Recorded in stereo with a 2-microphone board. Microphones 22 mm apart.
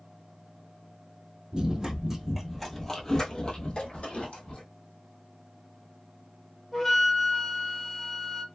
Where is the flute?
10° left (ahead or behind), 0.7 m.